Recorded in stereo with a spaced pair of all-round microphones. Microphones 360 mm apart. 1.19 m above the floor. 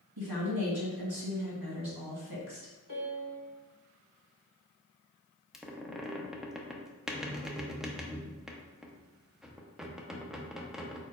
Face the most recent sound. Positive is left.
turn(degrees=0)  # may be behind; listen again after turning